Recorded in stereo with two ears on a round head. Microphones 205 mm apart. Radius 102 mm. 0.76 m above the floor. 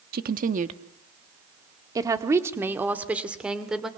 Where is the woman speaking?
45° right (ahead or behind), 1.2 m; by 3.9 s centre (ahead or behind), 2.5 m.